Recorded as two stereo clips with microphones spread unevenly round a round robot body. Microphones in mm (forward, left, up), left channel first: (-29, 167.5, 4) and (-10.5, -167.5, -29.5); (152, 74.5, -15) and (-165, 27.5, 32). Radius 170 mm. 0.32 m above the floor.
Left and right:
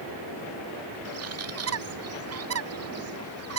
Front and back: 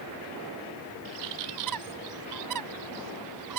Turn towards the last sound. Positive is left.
turn(degrees=-135)